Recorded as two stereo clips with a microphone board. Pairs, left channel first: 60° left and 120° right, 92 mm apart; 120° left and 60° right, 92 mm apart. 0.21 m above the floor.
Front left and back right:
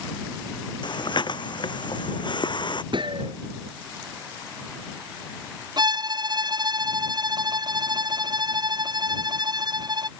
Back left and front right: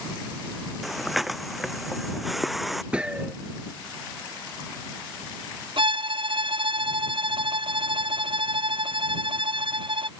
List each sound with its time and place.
0.8 s breathing: 30° left
2.9 s a gunshot: 140° right
5.8 s a violin: 80° right